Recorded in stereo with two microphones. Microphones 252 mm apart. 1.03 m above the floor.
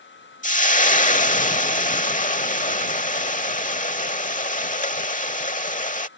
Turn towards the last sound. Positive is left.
turn(degrees=30)  # may be behind; listen again after turning